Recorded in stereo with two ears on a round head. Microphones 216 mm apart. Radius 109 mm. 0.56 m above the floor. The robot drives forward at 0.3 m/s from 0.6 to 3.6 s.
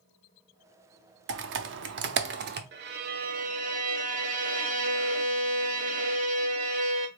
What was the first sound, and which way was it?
Typing on a keyboard, 45° right (ahead or behind).